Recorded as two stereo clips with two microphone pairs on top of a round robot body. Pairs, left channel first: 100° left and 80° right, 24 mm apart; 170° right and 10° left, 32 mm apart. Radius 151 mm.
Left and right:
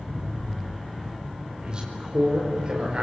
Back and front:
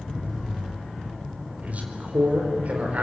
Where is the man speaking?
25° right, 4.5 m.